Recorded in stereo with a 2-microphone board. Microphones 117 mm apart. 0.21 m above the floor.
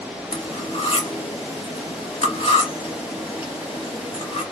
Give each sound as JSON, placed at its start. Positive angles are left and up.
{"t": 0.3, "sound": "cutlery clinking", "side_deg": 60, "distance_m": 1.6}